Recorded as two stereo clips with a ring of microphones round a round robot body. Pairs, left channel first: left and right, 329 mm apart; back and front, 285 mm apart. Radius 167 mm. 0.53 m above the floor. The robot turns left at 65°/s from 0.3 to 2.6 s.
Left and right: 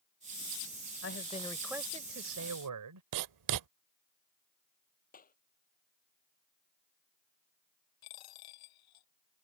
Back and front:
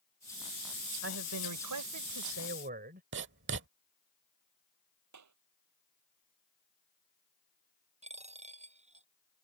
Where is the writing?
55° right.